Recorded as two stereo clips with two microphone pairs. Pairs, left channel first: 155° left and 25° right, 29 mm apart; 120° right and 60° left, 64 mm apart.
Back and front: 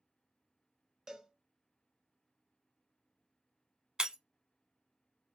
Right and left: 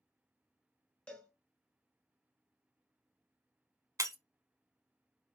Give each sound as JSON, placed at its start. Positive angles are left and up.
{"t": 1.1, "sound": "a cowbell", "azimuth_deg": -80, "distance_m": 1.5}
{"t": 4.0, "sound": "breaking glass", "azimuth_deg": 35, "distance_m": 0.6}